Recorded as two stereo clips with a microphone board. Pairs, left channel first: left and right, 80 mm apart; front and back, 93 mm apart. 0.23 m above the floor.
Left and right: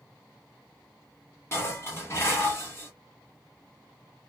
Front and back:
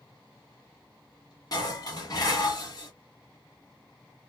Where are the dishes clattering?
35° left, 1.2 m.